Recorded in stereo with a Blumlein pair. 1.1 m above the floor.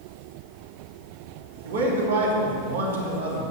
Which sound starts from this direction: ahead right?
A man speaking, at 1.6 s.